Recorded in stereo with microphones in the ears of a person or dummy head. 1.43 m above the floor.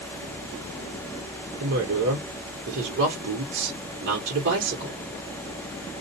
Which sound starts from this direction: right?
A woman speaking, at 1.6 s.